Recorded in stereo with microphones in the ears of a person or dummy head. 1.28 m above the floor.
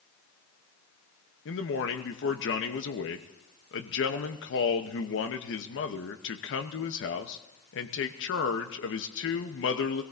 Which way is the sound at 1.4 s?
55° left (ahead or behind).